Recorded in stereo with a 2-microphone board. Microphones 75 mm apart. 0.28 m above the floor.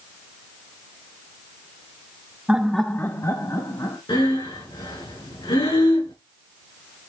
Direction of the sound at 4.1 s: 85° left.